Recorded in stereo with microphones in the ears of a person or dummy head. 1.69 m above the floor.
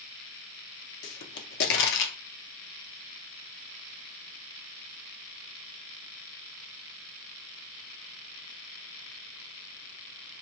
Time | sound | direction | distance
1.0 | a pop | 70° left (ahead or behind) | 0.8 m